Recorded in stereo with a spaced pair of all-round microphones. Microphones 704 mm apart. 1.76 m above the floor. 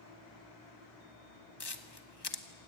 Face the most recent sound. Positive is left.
turn(degrees=35)  # may be behind; listen again after turning